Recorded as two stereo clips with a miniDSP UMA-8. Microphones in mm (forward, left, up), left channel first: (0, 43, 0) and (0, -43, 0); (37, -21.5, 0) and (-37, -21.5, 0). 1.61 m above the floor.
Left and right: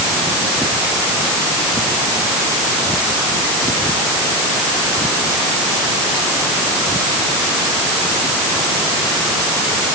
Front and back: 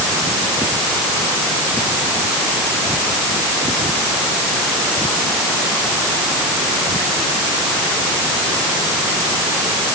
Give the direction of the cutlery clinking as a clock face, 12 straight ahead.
I don't hear cutlery clinking.